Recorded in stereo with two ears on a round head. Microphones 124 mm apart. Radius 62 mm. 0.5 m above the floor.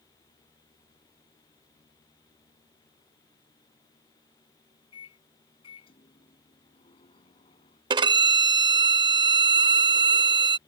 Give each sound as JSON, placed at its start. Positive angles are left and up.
{"t": 4.9, "sound": "a microwave", "side_deg": 40}
{"t": 7.9, "sound": "a violin", "side_deg": -30}